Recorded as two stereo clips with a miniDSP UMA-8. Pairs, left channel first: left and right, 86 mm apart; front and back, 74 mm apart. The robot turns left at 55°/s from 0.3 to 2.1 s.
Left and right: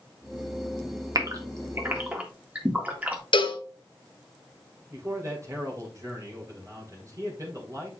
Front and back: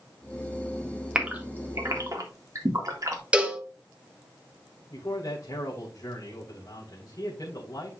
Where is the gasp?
105° right, 1.8 m; by 3.2 s 155° right, 1.8 m.